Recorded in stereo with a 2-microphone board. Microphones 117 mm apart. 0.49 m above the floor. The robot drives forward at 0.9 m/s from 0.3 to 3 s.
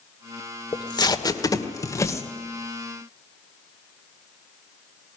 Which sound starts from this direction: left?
Tape being pulled, at 0.7 s.